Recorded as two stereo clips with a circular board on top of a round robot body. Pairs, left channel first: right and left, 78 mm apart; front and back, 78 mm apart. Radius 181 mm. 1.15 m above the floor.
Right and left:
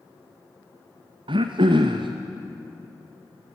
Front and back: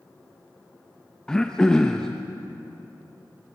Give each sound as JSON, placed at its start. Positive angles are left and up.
{"t": 1.3, "sound": "throat clearing", "azimuth_deg": 80, "distance_m": 0.5}